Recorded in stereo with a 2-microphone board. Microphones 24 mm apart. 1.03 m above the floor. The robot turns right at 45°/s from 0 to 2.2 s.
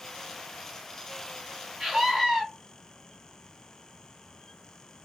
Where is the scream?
35° right (ahead or behind), 1.5 m; by 2.4 s 20° right (ahead or behind), 1.5 m.